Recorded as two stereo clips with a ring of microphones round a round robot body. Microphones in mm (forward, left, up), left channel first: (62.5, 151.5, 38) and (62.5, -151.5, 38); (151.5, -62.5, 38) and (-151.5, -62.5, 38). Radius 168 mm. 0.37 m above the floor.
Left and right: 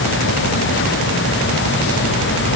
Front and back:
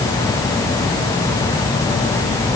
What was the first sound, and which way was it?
Only background noise.